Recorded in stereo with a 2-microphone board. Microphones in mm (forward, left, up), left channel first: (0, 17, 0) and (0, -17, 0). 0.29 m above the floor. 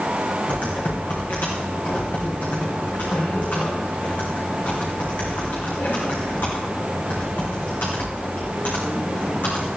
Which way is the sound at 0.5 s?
60° left (ahead or behind).